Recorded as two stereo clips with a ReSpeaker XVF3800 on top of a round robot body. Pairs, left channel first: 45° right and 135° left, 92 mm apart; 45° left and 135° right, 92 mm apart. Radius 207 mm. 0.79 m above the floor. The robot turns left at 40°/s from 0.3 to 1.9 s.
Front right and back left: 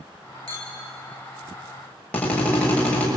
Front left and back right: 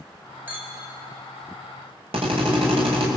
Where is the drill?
120° right, 5 m.